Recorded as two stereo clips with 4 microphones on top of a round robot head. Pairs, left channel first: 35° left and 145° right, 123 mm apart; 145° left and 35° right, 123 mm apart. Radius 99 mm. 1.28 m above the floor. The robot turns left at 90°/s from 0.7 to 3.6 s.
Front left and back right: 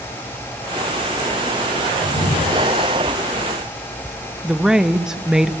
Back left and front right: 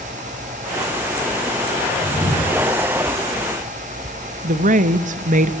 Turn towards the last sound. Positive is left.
turn(degrees=-60)